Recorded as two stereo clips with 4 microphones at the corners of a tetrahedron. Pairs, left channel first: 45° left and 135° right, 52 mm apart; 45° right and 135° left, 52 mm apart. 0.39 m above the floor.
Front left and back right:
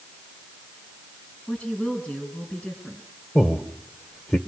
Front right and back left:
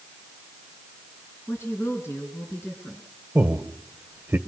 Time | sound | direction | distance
1.5 | a woman speaking | 15° right | 3.5 m
3.4 | a man speaking | 90° left | 1.4 m